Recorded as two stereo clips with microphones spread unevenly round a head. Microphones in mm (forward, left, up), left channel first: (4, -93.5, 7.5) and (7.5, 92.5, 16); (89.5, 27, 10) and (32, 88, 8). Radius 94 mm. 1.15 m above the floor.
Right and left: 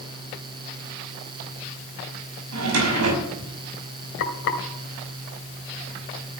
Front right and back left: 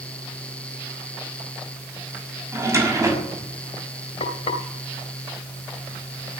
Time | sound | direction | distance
2.5 | a drawer | 75° left | 5.5 m
4.2 | frying | 60° right | 2 m